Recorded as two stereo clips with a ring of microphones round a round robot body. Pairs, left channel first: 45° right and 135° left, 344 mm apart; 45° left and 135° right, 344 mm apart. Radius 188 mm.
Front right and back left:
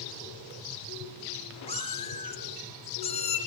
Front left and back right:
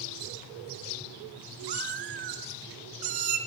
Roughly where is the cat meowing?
Behind right.